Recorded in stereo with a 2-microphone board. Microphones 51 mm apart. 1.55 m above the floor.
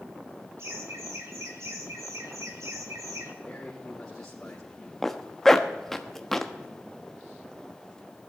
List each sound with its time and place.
0.6 s laughter: 65° right (ahead or behind), 3.5 m; by 3.3 s 80° right, 3 m
3.4 s a man speaking: 15° left (ahead or behind), 3.5 m
5.0 s a zipper: 5° left (ahead or behind), 1.0 m